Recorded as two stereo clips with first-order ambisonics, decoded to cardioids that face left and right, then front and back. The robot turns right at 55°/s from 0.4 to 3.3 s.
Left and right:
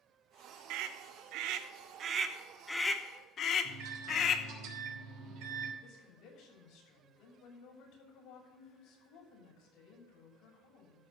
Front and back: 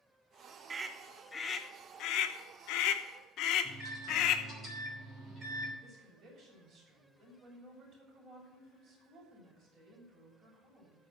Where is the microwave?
110° right, 3 m.